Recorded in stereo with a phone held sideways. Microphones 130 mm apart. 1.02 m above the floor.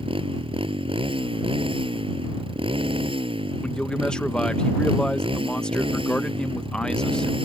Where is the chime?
No chime in this recording.